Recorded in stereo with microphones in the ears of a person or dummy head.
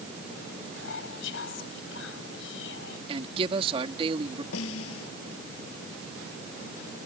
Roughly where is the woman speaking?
Right.